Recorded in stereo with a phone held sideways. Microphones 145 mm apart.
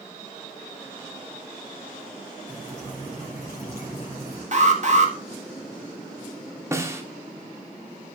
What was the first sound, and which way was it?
Dripping, 20° right (ahead or behind).